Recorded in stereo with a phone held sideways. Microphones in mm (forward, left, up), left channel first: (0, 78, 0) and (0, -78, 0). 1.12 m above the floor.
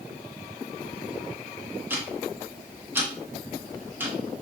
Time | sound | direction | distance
1.9 | ticking | 15° right (ahead or behind) | 1.0 m